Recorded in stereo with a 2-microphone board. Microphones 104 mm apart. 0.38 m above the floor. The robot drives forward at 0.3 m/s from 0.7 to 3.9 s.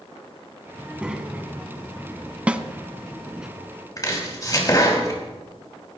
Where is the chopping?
35° left (ahead or behind), 2.5 m.